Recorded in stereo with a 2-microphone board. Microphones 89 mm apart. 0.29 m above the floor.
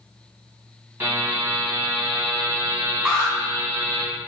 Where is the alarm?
20° right (ahead or behind), 1.9 m.